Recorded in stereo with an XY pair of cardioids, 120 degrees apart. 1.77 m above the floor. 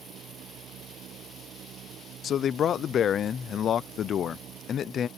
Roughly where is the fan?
Ahead right.